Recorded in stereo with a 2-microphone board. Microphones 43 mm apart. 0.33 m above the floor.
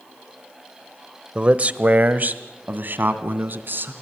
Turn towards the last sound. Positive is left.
turn(degrees=-50)  # may be behind; listen again after turning